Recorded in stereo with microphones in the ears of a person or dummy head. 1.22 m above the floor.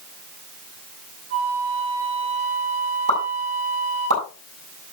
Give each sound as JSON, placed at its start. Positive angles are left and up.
{"t": 1.3, "sound": "a flute", "side_deg": -40, "distance_m": 4.0}
{"t": 3.1, "sound": "a pop", "side_deg": -75, "distance_m": 7.5}